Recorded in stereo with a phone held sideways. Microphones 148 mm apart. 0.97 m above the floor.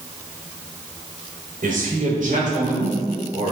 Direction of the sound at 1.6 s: 65° right (ahead or behind).